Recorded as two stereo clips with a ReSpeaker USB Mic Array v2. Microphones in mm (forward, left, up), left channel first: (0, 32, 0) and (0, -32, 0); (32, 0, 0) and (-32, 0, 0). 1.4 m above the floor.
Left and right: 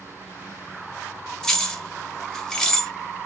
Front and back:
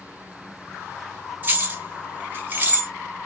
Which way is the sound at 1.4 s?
165° left.